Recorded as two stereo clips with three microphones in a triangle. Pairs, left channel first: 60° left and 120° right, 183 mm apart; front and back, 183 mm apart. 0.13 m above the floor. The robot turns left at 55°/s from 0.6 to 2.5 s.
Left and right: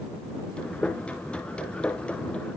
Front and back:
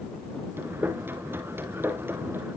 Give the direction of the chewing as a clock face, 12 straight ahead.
I don't hear chewing.